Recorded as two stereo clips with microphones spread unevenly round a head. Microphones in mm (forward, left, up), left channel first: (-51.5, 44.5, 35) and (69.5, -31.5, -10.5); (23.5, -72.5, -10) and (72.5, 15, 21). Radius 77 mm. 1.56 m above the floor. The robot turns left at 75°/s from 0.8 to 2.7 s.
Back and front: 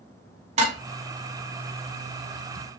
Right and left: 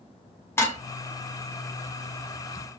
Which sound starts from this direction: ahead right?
Dishes clattering, at 0.6 s.